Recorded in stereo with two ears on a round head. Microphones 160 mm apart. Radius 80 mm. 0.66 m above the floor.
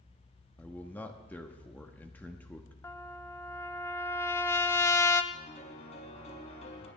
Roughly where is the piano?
Left.